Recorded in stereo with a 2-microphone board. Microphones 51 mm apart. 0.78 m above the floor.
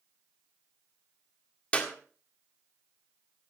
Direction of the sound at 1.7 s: 25° left (ahead or behind).